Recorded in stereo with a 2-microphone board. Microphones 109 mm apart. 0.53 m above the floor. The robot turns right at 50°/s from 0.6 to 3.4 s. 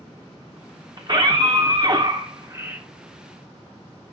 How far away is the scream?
About 1.0 m.